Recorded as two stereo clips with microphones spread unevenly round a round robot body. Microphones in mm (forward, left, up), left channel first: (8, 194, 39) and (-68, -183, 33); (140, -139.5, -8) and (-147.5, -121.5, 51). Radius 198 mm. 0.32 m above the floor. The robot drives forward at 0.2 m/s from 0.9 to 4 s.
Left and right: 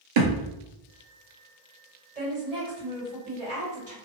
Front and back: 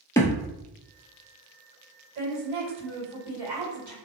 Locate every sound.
0.2 s a thud: 90° right, 0.7 m
2.1 s a woman speaking: 160° right, 1.8 m; by 3.9 s 165° right, 2 m